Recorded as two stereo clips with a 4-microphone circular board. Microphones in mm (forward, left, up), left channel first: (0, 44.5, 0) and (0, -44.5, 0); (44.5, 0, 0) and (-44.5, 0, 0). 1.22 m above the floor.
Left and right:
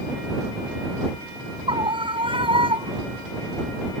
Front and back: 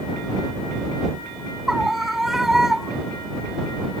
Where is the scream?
95° right.